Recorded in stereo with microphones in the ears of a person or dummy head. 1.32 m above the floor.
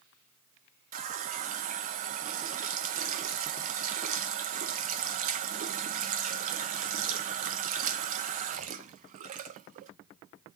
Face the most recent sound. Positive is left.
turn(degrees=-40)  # may be behind; listen again after turning